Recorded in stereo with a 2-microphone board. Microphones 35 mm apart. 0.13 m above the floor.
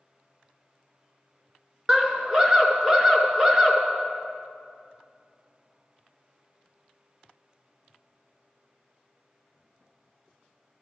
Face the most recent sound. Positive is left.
turn(degrees=-20)  # may be behind; listen again after turning